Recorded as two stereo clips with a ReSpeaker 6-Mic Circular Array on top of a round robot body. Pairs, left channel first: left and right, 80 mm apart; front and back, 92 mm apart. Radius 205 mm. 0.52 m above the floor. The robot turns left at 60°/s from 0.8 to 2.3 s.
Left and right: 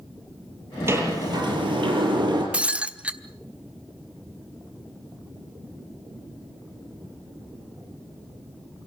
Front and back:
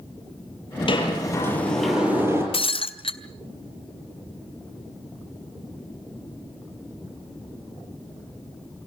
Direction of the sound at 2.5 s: 15° right.